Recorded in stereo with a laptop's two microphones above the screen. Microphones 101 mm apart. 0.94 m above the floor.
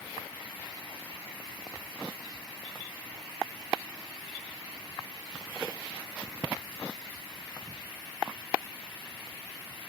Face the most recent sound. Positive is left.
No sound to turn to.